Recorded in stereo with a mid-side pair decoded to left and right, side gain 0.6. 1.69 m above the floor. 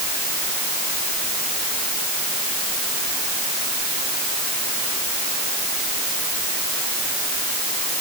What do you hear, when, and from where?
Only background noise.